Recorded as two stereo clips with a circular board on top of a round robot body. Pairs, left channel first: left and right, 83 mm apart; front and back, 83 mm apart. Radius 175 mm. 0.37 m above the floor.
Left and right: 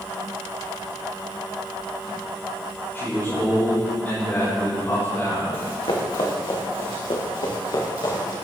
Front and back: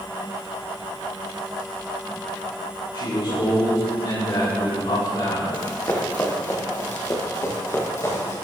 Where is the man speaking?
25° left, 4.5 m.